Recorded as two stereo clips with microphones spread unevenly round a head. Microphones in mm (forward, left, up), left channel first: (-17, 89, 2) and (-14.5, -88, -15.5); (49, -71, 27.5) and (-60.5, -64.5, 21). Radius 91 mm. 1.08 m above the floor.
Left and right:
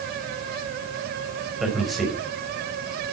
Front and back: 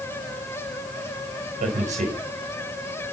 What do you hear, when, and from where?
1.6 s a man speaking: straight behind, 4.5 m